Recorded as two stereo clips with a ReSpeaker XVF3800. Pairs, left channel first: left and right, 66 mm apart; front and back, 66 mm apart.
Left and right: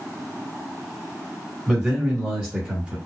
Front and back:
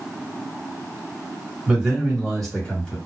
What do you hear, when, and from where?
1.7 s a man speaking: 130° right, 1.7 m; by 3.0 s 50° right, 1.8 m